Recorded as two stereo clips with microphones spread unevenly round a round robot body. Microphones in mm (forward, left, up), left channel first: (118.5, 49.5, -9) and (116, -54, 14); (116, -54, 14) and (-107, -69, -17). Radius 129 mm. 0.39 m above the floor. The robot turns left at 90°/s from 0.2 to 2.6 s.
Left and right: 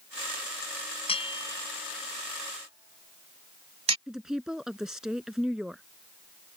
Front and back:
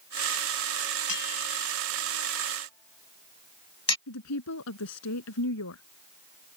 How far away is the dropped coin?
No dropped coin in this recording.